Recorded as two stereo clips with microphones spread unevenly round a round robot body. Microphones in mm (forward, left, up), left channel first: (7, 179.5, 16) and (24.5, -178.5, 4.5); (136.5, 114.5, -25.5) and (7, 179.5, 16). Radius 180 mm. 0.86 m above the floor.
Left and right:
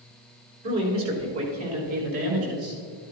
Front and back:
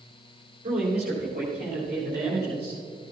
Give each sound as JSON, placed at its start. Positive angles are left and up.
{"t": 0.6, "sound": "a man speaking", "azimuth_deg": -145, "distance_m": 3.5}